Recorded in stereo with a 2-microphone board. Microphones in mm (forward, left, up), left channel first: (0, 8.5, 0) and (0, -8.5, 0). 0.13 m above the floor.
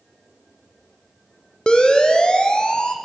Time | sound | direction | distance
1.7 | a siren | 75° left (ahead or behind) | 4 m